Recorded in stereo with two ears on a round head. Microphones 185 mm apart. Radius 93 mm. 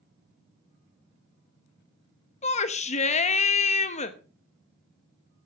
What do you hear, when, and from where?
2.4 s a shout: 35° left (ahead or behind), 0.9 m